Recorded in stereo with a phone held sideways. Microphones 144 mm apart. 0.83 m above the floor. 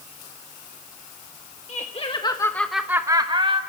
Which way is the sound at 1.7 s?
50° left (ahead or behind).